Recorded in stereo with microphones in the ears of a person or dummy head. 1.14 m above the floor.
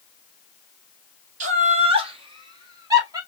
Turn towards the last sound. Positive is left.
turn(degrees=-25)  # may be behind; listen again after turning